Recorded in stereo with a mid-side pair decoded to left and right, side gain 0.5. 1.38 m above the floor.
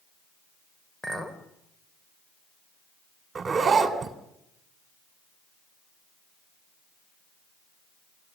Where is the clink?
15° left, 3.5 m.